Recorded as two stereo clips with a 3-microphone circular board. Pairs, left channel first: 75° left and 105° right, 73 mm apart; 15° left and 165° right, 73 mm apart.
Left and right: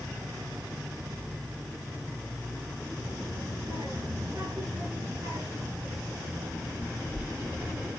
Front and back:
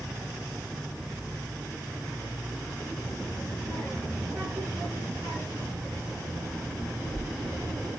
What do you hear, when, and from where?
3.0 s a child speaking: 120° right, 7 m; by 7.9 s 170° right, 5 m